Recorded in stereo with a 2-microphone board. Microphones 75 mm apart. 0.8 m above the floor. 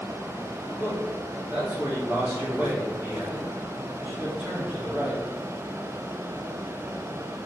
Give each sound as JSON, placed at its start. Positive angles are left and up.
{"t": 0.8, "sound": "a man speaking", "side_deg": -20, "distance_m": 1.9}